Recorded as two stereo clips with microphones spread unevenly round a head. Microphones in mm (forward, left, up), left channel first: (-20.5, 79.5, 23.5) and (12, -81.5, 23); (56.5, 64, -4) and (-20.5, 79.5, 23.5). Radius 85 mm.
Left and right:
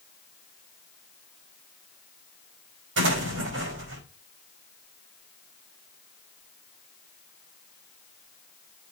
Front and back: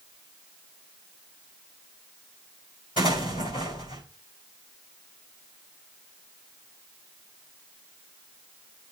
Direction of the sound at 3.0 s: 65° right.